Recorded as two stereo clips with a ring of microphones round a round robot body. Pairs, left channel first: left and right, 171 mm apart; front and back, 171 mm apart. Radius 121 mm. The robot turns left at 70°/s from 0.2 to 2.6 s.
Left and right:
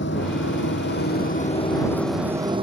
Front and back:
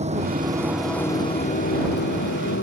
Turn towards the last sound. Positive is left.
turn(degrees=-35)